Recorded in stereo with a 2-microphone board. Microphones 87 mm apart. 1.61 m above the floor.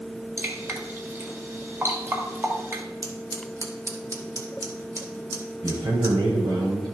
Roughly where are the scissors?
Right.